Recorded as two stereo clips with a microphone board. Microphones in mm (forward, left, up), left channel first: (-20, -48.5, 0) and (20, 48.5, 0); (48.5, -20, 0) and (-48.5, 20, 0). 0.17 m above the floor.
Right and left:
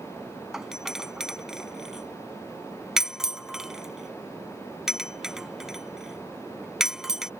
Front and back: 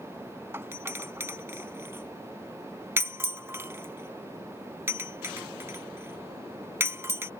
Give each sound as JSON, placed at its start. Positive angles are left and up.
{"t": 0.5, "sound": "a doorbell", "azimuth_deg": 145}